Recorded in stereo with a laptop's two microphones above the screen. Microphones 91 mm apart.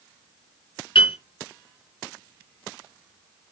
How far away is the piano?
About 4 m.